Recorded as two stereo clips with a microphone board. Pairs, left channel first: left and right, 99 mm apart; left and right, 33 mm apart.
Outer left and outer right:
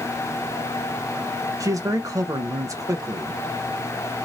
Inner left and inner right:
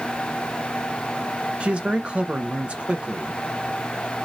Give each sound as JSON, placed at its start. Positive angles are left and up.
{"t": 1.6, "sound": "a man speaking", "side_deg": -35, "distance_m": 0.5}